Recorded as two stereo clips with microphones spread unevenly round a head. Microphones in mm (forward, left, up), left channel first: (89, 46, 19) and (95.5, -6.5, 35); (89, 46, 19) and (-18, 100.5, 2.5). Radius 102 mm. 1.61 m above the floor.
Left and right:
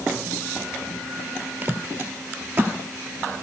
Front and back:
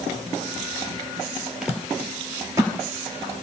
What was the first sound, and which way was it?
Footsteps, 115° right.